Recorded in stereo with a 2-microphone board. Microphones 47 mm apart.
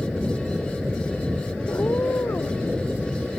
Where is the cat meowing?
75° left (ahead or behind); by 2.7 s 80° left.